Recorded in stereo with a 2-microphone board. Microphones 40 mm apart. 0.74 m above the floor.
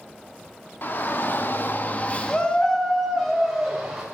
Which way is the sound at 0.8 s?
45° left (ahead or behind).